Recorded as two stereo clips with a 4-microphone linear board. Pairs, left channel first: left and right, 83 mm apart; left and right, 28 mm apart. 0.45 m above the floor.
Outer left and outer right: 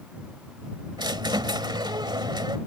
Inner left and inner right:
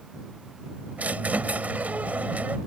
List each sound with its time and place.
1.0 s a squeak: 65° right (ahead or behind)